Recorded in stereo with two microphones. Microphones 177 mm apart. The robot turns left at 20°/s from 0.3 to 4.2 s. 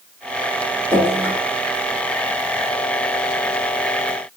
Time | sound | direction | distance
0.9 | dripping | 15° right (ahead or behind) | 1.2 m